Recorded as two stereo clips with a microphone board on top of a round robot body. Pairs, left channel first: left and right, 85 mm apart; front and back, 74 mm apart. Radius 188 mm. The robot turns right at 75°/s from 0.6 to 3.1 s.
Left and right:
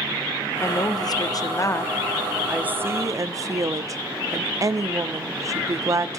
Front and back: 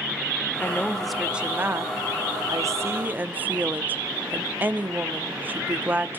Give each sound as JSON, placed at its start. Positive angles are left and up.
{"t": 0.6, "sound": "a woman speaking", "azimuth_deg": 50, "distance_m": 1.1}